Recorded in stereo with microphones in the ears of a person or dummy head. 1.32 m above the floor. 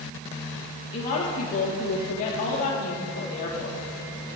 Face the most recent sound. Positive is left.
turn(degrees=35)  # may be behind; listen again after turning